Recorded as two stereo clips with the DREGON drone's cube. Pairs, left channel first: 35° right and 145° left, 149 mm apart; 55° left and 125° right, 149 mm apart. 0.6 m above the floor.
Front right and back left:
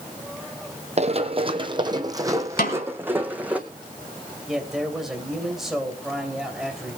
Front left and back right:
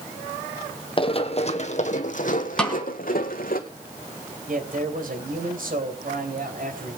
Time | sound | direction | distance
1.0 | running footsteps | 105° left | 1.3 m
2.6 | a snare drum | 30° right | 4 m
4.5 | a man speaking | 125° right | 3 m